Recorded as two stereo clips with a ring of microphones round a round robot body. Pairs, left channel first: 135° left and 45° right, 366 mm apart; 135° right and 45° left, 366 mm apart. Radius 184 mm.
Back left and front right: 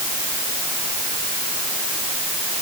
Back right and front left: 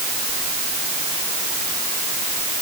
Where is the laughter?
No laughter in this recording.